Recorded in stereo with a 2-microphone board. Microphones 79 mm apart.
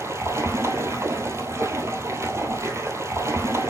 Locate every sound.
0.0 s running water: 35° right (ahead or behind), 0.9 m